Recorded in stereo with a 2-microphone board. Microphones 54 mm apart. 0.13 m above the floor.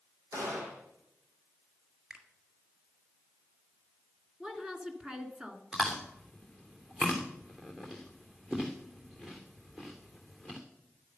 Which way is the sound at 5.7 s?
10° right (ahead or behind).